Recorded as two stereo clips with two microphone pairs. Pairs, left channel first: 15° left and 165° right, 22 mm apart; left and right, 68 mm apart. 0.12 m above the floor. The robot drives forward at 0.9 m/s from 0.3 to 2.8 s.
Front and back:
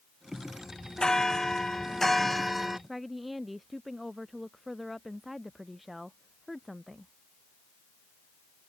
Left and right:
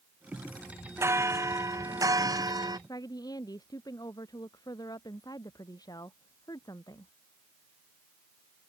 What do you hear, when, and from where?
1.0 s a bell: 45° right; by 2.8 s 85° right
2.9 s a woman speaking: 105° left